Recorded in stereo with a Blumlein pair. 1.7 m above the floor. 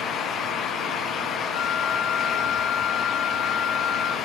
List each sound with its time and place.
0.0 s a fan: 25° left, 1.0 m
1.5 s a flute: 35° left, 1.3 m